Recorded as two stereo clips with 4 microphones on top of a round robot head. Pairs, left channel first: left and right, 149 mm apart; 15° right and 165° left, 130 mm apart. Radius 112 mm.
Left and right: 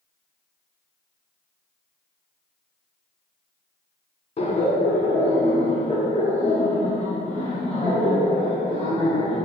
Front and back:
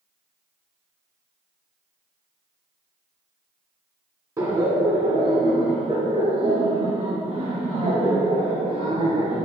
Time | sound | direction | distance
4.4 | laughter | 120° left | 1.6 m